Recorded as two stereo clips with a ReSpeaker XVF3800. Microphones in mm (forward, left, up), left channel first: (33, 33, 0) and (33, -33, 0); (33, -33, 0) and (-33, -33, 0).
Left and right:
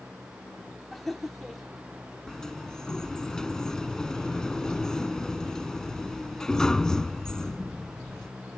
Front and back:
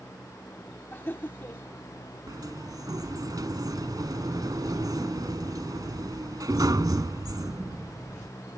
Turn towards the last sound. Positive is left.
turn(degrees=170)